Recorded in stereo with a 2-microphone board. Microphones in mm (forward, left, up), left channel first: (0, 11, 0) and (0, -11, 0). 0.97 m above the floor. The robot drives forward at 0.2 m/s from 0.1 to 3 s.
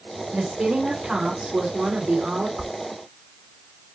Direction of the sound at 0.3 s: 75° right (ahead or behind).